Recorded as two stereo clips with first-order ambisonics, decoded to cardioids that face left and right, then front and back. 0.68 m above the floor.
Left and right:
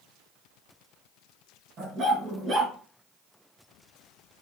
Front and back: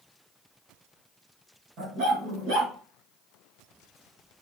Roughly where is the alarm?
No alarm in this recording.